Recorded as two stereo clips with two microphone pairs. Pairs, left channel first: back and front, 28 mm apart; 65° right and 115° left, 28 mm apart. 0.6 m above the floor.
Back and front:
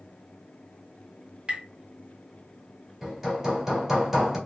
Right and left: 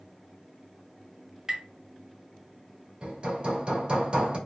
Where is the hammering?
70° left, 1.3 m.